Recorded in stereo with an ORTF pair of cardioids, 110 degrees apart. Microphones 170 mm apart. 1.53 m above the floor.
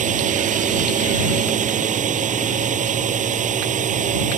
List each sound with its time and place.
0.0 s a drone: 45° right